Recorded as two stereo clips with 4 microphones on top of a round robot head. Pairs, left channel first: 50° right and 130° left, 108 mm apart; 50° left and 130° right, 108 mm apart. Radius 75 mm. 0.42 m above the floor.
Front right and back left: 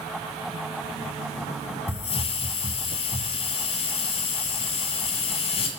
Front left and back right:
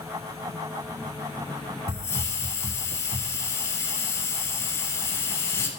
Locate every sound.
1.9 s a hiss: 15° right, 0.8 m